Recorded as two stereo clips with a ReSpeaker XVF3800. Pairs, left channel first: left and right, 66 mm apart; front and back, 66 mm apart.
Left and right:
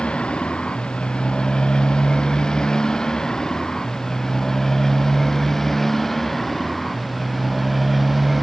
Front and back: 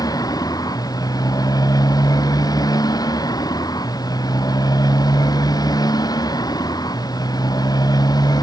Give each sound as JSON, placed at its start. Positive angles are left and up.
{"t": 0.0, "sound": "a motorcycle", "azimuth_deg": 15}